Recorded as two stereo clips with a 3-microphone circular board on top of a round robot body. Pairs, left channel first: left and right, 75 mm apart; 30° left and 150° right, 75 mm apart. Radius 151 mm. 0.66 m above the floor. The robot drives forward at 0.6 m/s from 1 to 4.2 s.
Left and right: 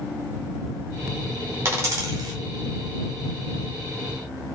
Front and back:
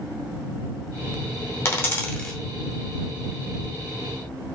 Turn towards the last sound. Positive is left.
turn(degrees=-155)